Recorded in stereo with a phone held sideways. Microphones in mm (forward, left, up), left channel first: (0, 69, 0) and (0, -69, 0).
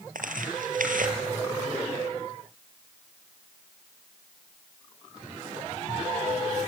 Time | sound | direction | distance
0.1 | tearing paper | 80° right | 3.5 m